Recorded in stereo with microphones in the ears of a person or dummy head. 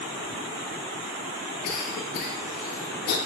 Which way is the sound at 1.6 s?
50° left (ahead or behind).